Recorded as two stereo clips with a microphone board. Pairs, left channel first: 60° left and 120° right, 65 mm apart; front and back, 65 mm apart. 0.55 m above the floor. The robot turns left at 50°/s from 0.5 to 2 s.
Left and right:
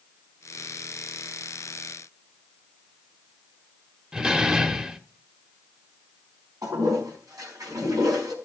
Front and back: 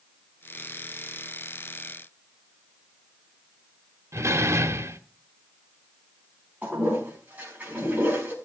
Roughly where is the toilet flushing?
Behind right.